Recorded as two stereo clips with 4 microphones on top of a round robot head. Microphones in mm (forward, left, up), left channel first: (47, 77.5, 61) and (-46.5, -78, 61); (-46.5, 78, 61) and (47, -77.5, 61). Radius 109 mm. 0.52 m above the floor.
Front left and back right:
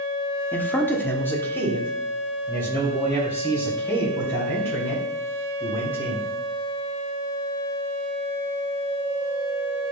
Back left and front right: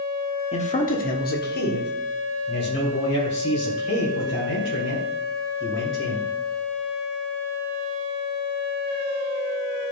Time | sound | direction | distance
0.5 | a man speaking | 135° left | 1.0 m